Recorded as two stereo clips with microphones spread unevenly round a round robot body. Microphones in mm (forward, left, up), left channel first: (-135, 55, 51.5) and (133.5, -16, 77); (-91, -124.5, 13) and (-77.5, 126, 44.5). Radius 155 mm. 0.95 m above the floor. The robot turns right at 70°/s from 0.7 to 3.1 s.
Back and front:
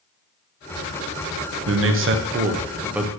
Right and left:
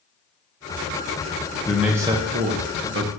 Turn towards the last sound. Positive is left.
turn(degrees=85)